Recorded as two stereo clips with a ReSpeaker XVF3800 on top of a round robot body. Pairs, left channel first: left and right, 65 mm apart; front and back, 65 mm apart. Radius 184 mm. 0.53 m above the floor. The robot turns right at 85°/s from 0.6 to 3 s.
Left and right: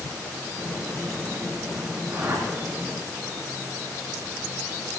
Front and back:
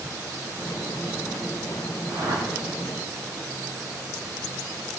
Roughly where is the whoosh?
Behind.